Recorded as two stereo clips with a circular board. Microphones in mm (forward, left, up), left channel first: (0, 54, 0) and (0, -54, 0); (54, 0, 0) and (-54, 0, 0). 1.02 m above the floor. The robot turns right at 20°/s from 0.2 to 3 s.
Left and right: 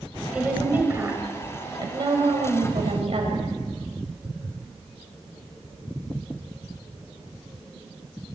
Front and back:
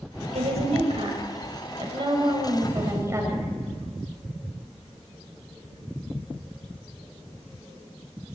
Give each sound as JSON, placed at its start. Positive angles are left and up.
{"t": 0.3, "sound": "a woman speaking", "azimuth_deg": -170, "distance_m": 6.5}